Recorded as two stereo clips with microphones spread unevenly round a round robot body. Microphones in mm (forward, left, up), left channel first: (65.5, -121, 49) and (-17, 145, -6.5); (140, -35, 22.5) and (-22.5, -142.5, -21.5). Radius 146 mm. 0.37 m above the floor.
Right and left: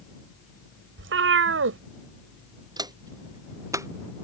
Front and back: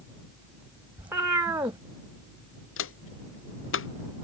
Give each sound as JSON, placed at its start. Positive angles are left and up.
{"t": 1.0, "sound": "a cat meowing", "azimuth_deg": 140}
{"t": 2.8, "sound": "footsteps", "azimuth_deg": 30}